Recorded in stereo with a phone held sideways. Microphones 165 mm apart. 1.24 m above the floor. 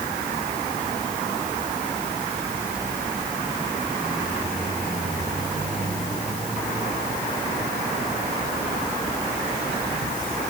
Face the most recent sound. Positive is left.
No sound to turn to.